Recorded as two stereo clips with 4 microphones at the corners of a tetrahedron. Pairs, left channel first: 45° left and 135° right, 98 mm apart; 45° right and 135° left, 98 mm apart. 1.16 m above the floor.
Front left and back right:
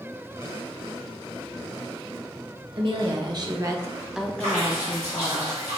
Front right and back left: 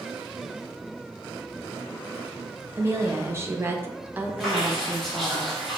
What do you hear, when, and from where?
2.8 s a woman speaking: 165° right, 1.3 m; by 5.4 s 40° left, 1.0 m
4.4 s dripping: 130° right, 1.6 m